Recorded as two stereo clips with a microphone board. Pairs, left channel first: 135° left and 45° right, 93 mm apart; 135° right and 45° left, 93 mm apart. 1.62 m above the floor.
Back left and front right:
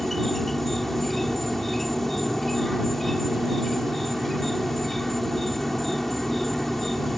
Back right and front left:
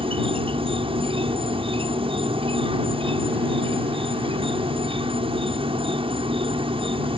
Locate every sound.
0.0 s an insect: 50° left